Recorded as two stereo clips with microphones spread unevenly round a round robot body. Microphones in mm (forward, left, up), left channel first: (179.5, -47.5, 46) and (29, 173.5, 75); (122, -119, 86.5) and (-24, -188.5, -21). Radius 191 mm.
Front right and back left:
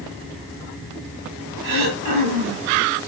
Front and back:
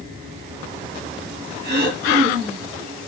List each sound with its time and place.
1.6 s throat clearing: 150° left, 3.5 m